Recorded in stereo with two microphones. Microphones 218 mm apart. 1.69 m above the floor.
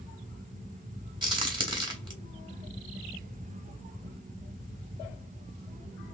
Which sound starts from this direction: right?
A crack, at 1.2 s.